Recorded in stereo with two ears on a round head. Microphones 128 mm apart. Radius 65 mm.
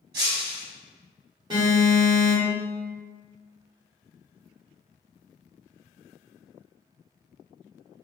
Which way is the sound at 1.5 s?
30° right (ahead or behind).